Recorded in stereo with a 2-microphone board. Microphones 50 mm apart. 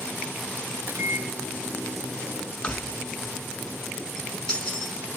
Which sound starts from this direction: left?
Keys jangling, at 2.6 s.